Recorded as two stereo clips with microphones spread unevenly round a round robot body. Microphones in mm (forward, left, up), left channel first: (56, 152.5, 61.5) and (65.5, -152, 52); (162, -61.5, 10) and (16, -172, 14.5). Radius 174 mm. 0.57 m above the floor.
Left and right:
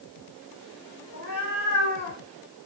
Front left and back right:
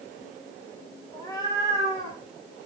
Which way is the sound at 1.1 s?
140° left.